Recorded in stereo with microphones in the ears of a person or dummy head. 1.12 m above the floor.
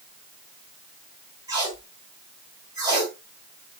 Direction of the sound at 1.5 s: 20° right (ahead or behind).